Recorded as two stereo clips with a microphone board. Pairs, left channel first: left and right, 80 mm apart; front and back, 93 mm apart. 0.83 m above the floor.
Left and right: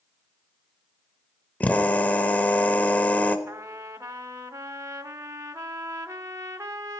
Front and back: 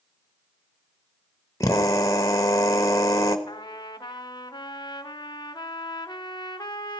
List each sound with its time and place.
1.6 s a drill: 30° left, 1.1 m
3.5 s a trumpet: 40° right, 0.8 m